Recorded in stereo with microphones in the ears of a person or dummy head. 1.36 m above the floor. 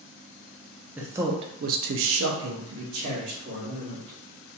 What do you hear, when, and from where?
1.0 s a man speaking: 10° right (ahead or behind), 0.6 m; by 4.2 s 55° right (ahead or behind), 1.5 m